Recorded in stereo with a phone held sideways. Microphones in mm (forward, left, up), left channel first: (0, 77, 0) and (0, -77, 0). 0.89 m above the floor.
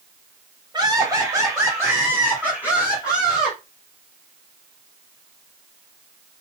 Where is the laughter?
25° right (ahead or behind), 2.5 m; by 3.6 s 30° left (ahead or behind), 3 m.